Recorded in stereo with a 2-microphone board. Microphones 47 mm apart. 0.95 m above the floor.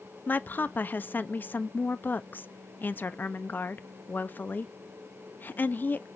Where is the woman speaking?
40° left (ahead or behind), 0.5 m.